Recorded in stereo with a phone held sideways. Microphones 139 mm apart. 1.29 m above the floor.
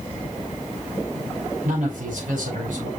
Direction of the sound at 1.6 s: 70° right (ahead or behind).